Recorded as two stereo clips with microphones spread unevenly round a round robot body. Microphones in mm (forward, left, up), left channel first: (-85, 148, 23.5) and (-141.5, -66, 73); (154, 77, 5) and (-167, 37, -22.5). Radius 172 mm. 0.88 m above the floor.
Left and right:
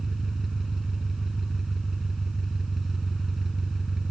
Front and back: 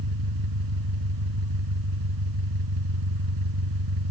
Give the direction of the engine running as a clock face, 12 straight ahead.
6 o'clock.